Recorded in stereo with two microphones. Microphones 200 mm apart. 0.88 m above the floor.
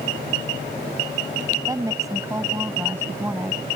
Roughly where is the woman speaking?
Centre.